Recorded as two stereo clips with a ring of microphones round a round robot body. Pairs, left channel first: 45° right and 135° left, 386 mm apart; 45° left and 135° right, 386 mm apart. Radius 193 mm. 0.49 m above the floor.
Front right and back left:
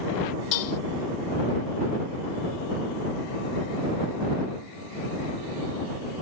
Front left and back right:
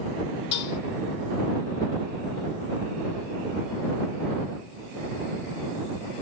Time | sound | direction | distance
0.5 | dishes clattering | 5° right | ?